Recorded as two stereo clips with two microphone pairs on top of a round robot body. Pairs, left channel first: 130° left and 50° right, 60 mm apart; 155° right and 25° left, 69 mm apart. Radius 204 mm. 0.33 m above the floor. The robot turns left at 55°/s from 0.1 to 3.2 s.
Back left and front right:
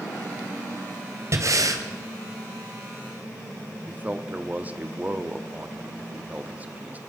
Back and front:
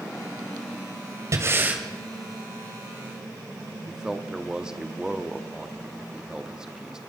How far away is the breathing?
About 2.5 m.